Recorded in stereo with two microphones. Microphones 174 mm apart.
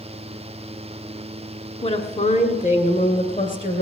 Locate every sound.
1.8 s a woman speaking: 35° left (ahead or behind), 1.5 m; by 3.8 s 50° left (ahead or behind), 2.5 m